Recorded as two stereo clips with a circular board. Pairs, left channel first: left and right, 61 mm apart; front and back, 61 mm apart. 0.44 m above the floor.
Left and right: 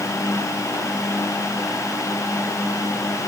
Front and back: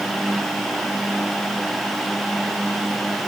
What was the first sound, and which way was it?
Only background noise.